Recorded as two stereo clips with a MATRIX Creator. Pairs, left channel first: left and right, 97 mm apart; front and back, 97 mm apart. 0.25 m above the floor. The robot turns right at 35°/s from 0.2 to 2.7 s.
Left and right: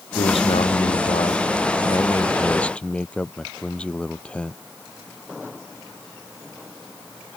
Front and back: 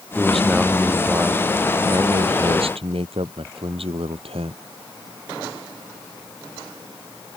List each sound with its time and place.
0.1 s a man speaking: 80° left; by 4.6 s 170° left